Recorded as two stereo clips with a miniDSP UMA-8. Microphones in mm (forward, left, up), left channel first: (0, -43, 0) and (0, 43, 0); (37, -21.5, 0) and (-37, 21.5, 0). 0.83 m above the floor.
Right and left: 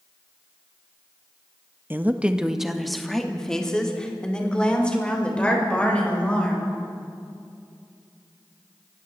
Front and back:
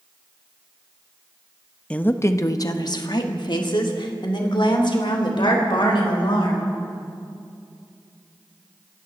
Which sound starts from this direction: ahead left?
A woman speaking, at 1.9 s.